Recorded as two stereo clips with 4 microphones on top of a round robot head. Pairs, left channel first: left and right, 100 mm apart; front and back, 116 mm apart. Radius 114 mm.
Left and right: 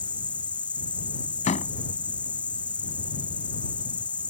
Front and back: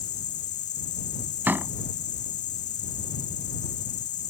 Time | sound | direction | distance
0.0 | an insect | 10° left | ?
1.5 | a door slam | 105° left | ?